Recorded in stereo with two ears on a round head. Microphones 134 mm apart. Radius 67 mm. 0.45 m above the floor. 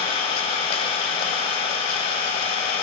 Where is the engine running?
40° left (ahead or behind), 1.4 m.